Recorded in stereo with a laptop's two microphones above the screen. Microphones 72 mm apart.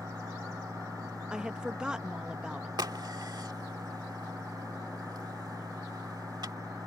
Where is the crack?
70° right (ahead or behind).